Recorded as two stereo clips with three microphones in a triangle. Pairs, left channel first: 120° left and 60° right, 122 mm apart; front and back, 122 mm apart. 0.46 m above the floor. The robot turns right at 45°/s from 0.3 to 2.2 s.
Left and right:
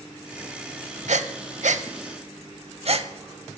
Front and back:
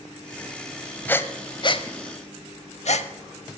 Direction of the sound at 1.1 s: 75° right.